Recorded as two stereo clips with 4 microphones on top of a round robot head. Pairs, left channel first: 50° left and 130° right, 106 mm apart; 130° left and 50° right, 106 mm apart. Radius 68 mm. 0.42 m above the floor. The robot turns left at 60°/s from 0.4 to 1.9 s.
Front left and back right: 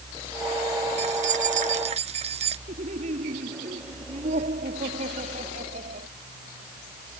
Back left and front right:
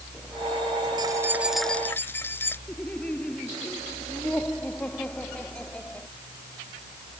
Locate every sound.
1.0 s keys jangling: 105° right; by 2.6 s 160° right
2.7 s laughter: 150° right